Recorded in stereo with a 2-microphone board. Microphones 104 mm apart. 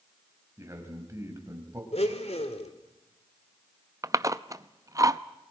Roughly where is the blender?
Left.